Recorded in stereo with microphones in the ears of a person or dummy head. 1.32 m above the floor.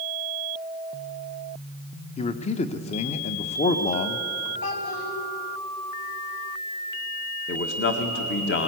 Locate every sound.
2.2 s a man speaking: 30° left (ahead or behind), 1.0 m
4.6 s a child speaking: 70° left (ahead or behind), 5 m
7.5 s a man speaking: 50° left (ahead or behind), 1.7 m